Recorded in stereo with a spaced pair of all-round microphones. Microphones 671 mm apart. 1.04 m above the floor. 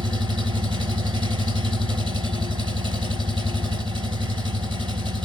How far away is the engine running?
About 3.5 m.